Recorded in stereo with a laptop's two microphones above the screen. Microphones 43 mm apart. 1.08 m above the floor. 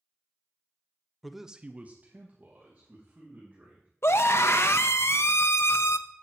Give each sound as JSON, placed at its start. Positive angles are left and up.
{"t": 1.2, "sound": "a man speaking", "side_deg": 0, "distance_m": 0.8}
{"t": 4.0, "sound": "a scream", "side_deg": 60, "distance_m": 0.6}